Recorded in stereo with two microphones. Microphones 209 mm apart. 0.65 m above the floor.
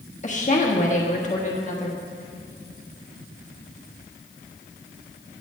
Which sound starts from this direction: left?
A woman speaking, at 0.2 s.